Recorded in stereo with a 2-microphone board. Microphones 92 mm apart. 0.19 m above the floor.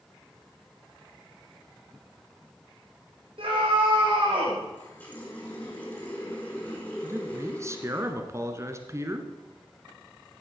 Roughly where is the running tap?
Centre.